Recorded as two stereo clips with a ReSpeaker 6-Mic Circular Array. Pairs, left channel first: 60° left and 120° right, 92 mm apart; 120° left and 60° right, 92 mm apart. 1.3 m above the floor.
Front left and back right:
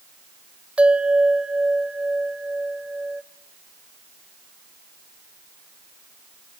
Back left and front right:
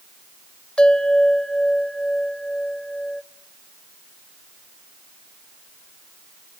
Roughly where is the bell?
Behind.